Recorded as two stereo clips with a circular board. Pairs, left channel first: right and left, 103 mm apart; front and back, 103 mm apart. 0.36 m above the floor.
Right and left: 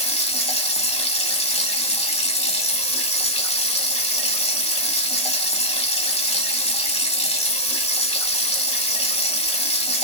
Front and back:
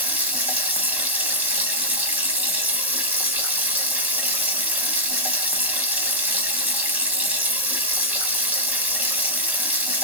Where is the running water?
105° right, 0.8 m.